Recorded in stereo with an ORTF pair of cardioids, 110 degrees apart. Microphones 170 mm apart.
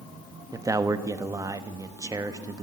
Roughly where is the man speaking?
Ahead.